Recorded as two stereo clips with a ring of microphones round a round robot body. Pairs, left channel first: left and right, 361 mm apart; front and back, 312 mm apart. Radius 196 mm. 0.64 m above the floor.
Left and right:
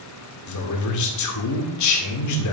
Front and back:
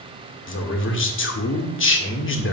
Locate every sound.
0.5 s a man speaking: 50° left, 1.8 m